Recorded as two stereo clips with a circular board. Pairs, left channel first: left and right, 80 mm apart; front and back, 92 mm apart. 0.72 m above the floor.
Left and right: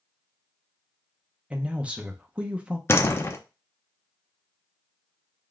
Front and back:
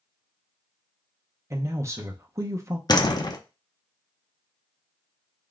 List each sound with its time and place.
1.5 s a man speaking: 155° right, 0.5 m
2.9 s a door slam: 35° left, 0.5 m